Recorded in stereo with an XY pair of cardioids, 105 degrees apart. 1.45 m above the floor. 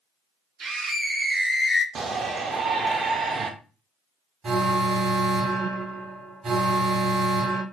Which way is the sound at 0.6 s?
50° right.